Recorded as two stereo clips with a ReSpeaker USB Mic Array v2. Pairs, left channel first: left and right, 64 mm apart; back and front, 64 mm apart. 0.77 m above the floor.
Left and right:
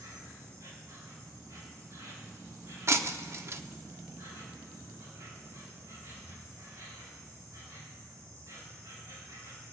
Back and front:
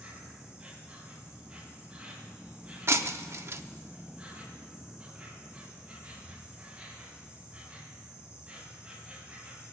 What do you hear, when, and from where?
0.0 s an insect: 75° right, 3 m
2.9 s breaking glass: 45° right, 0.6 m